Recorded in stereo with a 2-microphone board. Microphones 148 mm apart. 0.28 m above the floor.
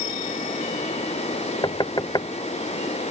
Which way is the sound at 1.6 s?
30° left (ahead or behind).